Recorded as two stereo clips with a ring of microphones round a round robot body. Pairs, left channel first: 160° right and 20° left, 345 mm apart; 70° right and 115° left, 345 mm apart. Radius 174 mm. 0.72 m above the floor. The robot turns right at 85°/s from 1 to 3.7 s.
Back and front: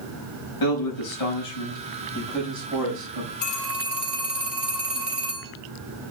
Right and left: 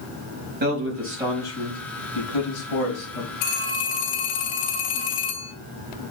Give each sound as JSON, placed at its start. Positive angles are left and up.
{"t": 0.6, "sound": "a man speaking", "azimuth_deg": 175, "distance_m": 5.0}
{"t": 3.4, "sound": "a phone ringing", "azimuth_deg": -90, "distance_m": 2.5}